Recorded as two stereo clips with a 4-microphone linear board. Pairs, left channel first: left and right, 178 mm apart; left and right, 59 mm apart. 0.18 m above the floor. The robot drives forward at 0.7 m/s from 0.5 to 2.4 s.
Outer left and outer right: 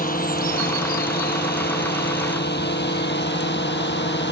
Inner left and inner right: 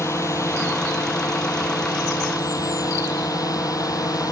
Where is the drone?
55° left (ahead or behind); by 4.3 s 80° left.